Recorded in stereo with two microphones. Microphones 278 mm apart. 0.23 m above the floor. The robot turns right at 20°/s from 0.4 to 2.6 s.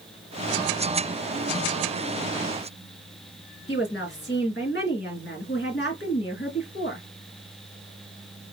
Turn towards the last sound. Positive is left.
turn(degrees=40)  # may be behind; listen again after turning